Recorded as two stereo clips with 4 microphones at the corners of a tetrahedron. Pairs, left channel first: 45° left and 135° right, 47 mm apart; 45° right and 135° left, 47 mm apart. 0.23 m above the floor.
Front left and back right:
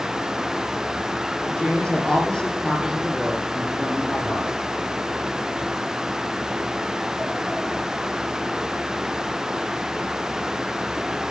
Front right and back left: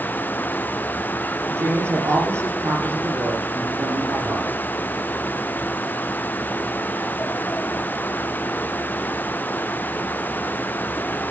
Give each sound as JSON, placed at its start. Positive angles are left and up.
{"t": 1.5, "sound": "a woman speaking", "azimuth_deg": 120, "distance_m": 9.5}